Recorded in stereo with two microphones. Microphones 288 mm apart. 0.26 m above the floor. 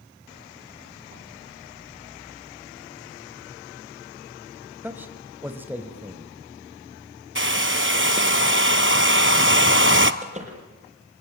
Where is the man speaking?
5° right (ahead or behind), 1.3 m.